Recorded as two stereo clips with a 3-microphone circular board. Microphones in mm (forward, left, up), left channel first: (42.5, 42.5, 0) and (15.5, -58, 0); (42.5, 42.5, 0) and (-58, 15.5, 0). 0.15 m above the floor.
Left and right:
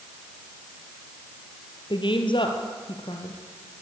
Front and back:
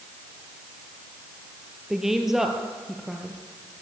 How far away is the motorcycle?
No motorcycle in this recording.